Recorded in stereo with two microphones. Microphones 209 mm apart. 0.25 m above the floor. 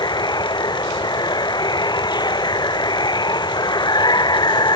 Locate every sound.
0.0 s running water: 20° left (ahead or behind)